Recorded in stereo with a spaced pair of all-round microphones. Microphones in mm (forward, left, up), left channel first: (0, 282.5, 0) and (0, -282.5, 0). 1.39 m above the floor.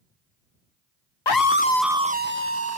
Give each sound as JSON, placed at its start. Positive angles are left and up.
{"t": 1.3, "sound": "a scream", "side_deg": 50}